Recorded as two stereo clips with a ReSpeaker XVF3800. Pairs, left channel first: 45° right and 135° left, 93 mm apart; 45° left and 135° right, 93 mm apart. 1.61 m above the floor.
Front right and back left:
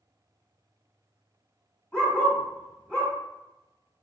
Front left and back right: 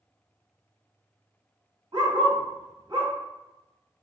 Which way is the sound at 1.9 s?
125° right.